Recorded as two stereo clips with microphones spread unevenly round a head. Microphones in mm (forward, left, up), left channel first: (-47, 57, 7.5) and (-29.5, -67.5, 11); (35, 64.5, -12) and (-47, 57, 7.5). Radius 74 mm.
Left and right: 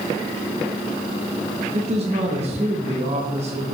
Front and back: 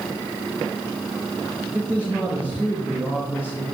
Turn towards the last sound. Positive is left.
turn(degrees=-90)